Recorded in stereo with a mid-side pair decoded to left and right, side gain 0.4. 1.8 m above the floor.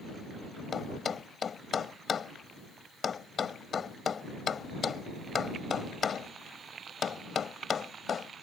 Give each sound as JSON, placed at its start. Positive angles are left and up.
{"t": 0.7, "sound": "a thud", "azimuth_deg": 50}